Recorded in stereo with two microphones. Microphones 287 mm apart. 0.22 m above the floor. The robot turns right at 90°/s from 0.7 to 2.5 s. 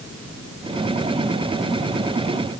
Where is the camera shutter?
I don't hear a camera shutter.